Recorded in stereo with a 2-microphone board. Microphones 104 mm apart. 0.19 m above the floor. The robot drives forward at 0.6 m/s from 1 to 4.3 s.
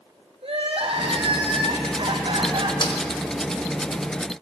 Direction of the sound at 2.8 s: 45° left (ahead or behind).